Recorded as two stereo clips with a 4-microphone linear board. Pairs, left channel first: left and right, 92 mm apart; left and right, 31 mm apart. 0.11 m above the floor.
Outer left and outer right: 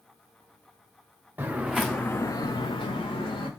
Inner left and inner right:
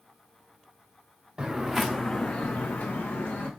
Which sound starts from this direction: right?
Footsteps, at 1.4 s.